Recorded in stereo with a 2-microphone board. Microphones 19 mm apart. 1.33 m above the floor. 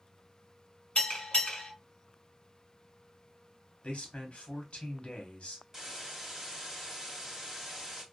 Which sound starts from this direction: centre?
A hiss, at 5.7 s.